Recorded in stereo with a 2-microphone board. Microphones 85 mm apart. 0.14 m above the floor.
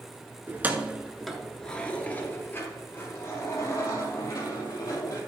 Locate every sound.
0.5 s keys jangling: 25° right (ahead or behind), 1.0 m; by 5.2 s 45° left (ahead or behind), 3 m